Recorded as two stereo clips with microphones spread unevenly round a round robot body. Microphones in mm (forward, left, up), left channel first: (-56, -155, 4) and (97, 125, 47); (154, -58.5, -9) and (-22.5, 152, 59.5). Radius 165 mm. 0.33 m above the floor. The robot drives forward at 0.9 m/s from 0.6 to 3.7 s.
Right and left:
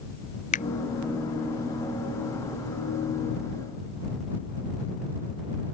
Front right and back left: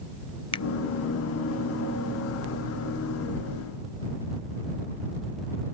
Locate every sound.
0.5 s a finger snap: 80° right; by 0.7 s 90° right